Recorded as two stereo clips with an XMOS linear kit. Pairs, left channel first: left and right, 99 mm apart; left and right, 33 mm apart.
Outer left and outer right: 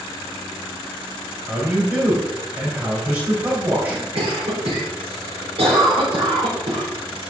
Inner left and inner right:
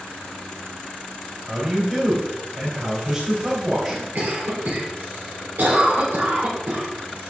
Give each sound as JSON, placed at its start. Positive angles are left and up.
{"t": 1.5, "sound": "a man speaking", "side_deg": -20, "distance_m": 3.0}
{"t": 4.2, "sound": "a cough", "side_deg": -75, "distance_m": 3.0}